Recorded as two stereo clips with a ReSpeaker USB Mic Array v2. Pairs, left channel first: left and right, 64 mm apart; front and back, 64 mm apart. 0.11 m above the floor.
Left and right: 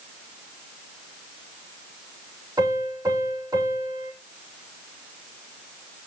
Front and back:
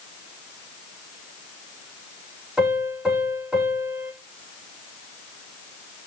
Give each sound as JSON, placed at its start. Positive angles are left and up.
{"t": 2.6, "sound": "a piano", "azimuth_deg": -105, "distance_m": 5.0}